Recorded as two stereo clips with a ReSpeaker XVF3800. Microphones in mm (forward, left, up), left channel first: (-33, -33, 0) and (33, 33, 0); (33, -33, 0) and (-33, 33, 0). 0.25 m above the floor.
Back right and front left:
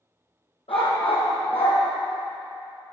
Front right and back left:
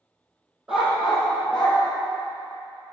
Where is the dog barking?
140° right, 3.5 m; by 1.8 s 125° right, 4 m.